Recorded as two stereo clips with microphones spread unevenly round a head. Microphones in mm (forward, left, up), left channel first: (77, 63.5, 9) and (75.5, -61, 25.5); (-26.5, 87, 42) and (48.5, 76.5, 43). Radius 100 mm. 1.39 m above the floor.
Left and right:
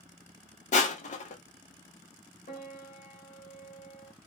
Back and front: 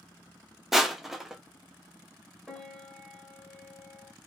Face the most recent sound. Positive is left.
turn(degrees=85)